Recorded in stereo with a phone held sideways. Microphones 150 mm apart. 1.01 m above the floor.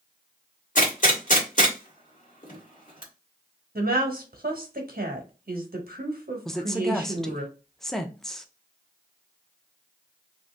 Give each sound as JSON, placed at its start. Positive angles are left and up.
{"t": 0.8, "sound": "a gunshot", "side_deg": 60, "distance_m": 1.5}
{"t": 3.8, "sound": "a woman speaking", "side_deg": -80, "distance_m": 1.2}
{"t": 6.5, "sound": "a woman speaking", "side_deg": 5, "distance_m": 0.6}